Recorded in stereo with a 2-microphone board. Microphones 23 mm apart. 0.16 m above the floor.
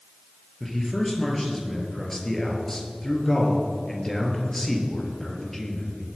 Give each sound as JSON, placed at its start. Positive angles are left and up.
{"t": 0.6, "sound": "a man speaking", "side_deg": 15, "distance_m": 3.0}